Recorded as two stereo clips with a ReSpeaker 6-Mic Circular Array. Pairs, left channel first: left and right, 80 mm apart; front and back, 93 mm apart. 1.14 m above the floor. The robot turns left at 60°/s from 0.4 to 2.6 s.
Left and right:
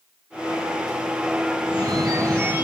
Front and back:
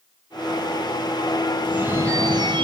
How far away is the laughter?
No laughter in this recording.